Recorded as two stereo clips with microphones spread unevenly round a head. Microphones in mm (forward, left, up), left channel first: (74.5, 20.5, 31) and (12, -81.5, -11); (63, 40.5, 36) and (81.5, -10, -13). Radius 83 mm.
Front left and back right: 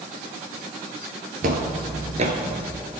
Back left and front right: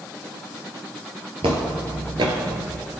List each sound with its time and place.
1.4 s footsteps: 130° right, 1.5 m; by 2.8 s 90° right, 1.2 m